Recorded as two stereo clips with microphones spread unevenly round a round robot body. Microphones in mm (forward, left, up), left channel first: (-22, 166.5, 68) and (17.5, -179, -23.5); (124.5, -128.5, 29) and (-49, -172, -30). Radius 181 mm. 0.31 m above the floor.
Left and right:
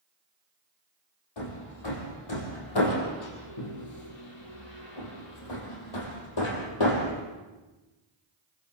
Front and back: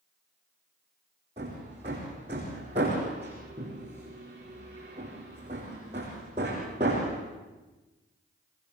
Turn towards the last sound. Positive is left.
turn(degrees=120)